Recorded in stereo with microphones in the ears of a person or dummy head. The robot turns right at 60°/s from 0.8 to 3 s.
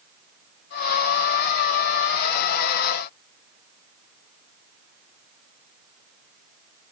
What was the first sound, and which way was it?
Only background noise.